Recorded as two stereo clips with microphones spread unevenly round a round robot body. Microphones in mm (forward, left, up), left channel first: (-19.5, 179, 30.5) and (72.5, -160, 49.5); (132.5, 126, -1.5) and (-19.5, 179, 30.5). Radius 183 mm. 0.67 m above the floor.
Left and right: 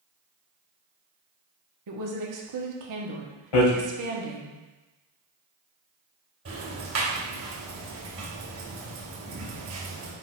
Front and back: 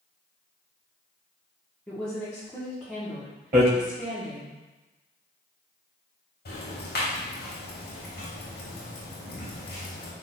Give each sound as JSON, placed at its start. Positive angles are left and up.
{"t": 1.9, "sound": "a woman speaking", "azimuth_deg": -95, "distance_m": 1.5}
{"t": 3.5, "sound": "hammering", "azimuth_deg": 130, "distance_m": 2.5}
{"t": 6.5, "sound": "ticking", "azimuth_deg": -20, "distance_m": 3.0}